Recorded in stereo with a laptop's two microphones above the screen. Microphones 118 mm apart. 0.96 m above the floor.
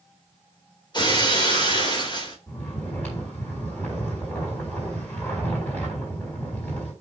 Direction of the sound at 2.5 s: 10° left (ahead or behind).